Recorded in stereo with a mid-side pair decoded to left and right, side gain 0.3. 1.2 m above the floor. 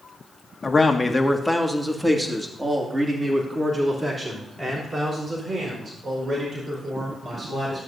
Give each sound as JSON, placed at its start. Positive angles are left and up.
{"t": 0.6, "sound": "a man speaking", "azimuth_deg": 35, "distance_m": 1.6}